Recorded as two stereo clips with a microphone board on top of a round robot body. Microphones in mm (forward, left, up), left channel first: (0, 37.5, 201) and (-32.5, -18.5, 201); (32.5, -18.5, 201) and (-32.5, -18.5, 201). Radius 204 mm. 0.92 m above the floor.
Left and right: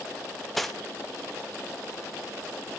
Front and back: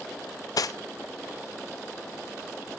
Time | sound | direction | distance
0.6 | cutlery clinking | 30° right | 0.7 m